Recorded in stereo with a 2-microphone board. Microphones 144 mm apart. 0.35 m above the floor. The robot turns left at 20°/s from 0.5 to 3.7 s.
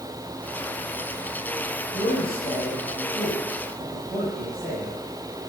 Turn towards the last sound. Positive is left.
turn(degrees=10)  # may be behind; listen again after turning